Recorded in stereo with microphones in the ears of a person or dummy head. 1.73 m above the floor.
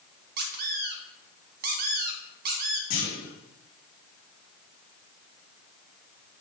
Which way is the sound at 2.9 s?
45° left (ahead or behind).